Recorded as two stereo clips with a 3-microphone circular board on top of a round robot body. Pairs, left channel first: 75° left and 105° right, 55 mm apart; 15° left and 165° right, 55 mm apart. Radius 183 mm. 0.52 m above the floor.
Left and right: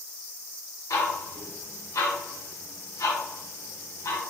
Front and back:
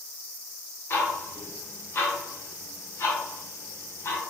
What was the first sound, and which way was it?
Ticking, 65° left.